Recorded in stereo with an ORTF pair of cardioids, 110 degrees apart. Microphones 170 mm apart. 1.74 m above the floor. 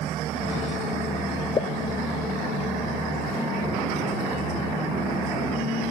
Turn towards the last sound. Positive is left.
turn(degrees=30)